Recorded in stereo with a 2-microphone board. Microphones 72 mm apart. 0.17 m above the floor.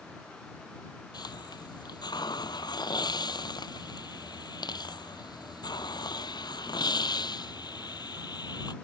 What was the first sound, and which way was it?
A hiss, 80° left.